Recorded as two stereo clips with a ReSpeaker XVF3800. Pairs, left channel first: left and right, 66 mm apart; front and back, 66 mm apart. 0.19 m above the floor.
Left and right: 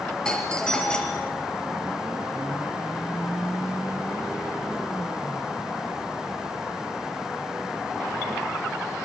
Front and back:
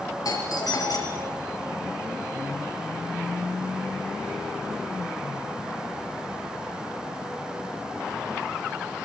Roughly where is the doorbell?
Ahead.